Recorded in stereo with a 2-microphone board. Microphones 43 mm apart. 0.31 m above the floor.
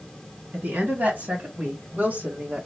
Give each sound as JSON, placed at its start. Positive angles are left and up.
{"t": 0.5, "sound": "a woman speaking", "side_deg": -45, "distance_m": 2.5}